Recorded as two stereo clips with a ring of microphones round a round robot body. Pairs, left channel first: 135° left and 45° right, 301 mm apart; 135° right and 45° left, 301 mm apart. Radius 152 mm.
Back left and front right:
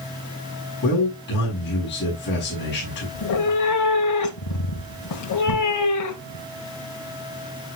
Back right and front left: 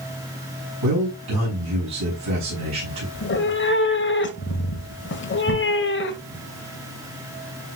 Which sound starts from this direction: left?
A man speaking, at 0.8 s.